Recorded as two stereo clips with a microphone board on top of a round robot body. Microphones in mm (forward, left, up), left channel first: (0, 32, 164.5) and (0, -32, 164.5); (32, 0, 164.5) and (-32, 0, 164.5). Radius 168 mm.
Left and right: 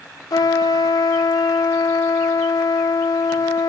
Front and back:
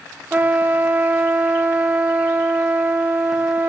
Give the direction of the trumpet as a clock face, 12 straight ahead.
8 o'clock.